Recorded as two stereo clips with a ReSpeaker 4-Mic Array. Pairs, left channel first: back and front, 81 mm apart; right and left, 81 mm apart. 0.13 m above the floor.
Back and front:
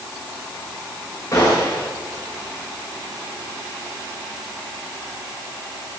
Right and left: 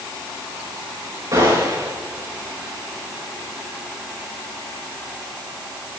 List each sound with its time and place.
1.3 s a gunshot: 125° left, 6.5 m